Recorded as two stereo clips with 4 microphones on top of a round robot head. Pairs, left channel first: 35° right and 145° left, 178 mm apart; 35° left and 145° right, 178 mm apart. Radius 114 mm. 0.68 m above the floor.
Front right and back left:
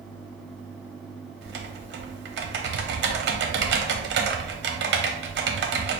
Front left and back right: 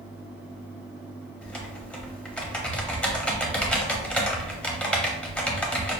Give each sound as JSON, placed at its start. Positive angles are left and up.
{"t": 1.4, "sound": "typing on a keyboard", "azimuth_deg": 120, "distance_m": 0.7}